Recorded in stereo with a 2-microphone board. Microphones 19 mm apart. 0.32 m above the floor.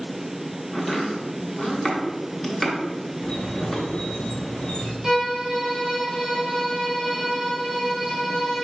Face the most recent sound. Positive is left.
turn(degrees=-10)  # may be behind; listen again after turning